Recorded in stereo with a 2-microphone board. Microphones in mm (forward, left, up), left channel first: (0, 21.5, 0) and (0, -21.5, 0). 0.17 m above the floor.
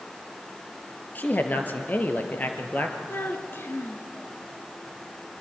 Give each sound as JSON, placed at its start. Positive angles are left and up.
{"t": 1.1, "sound": "a man speaking", "side_deg": 40, "distance_m": 3.0}
{"t": 3.1, "sound": "a child speaking", "side_deg": 55, "distance_m": 2.0}